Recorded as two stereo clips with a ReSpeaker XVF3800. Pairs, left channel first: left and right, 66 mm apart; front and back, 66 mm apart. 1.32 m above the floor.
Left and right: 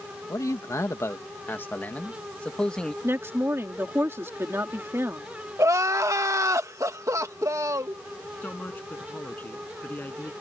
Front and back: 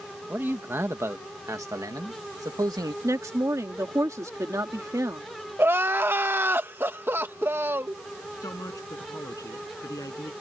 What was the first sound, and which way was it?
A man speaking, 120° left.